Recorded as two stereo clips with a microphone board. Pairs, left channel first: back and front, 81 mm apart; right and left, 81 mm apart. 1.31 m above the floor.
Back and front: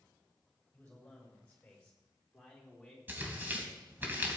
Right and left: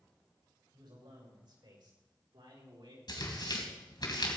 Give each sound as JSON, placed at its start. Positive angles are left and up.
{"t": 0.7, "sound": "a man speaking", "azimuth_deg": 105, "distance_m": 6.0}
{"t": 3.1, "sound": "tearing paper", "azimuth_deg": -65, "distance_m": 2.5}